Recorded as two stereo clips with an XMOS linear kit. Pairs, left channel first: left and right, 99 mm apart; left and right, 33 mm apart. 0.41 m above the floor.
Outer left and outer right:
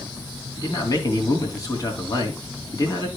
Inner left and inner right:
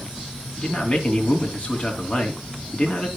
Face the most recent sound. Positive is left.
turn(degrees=35)  # may be behind; listen again after turning